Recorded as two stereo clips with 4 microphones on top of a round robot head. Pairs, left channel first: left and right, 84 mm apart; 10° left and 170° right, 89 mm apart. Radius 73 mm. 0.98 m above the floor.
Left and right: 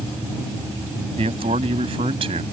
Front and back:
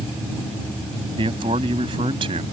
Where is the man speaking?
125° right.